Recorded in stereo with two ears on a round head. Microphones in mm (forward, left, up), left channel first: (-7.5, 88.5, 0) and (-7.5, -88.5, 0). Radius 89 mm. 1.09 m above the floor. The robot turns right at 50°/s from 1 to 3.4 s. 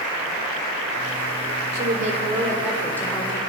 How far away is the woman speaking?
About 4 m.